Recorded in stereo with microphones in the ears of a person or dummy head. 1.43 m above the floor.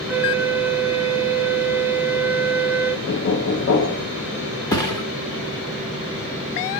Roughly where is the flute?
Centre.